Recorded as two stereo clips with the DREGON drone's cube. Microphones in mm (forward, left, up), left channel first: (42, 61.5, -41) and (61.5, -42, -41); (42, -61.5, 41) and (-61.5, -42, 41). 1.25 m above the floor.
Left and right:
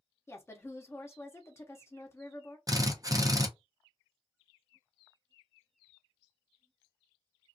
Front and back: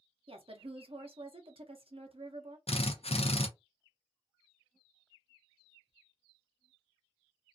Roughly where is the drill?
Ahead.